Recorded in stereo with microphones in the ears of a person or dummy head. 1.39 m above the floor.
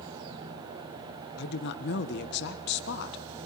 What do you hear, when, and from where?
1.4 s a woman speaking: 60° left (ahead or behind), 1.2 m